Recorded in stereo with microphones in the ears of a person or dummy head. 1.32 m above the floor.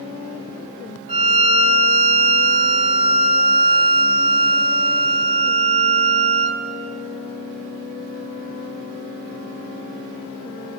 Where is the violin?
35° right (ahead or behind), 3.5 m.